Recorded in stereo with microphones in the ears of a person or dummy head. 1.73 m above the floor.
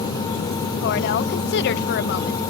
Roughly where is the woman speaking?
Left.